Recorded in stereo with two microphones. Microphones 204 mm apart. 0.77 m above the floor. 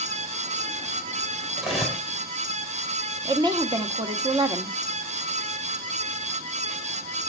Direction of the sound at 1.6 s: Centre (ahead or behind).